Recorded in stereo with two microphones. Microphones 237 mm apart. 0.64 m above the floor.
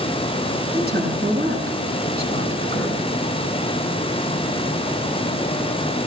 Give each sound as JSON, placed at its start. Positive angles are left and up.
{"t": 0.7, "sound": "a woman speaking", "side_deg": -40, "distance_m": 6.0}